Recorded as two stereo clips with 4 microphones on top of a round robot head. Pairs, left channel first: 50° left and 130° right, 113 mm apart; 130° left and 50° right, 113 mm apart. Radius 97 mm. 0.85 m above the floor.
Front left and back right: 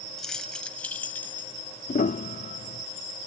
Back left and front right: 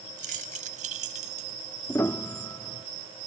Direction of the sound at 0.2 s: 40° right.